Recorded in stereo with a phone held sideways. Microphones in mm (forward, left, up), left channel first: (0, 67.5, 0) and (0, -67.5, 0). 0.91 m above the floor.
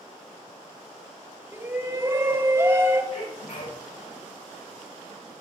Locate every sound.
1.5 s a shout: 20° right (ahead or behind), 1.7 m
3.1 s a sneeze: 80° left, 6 m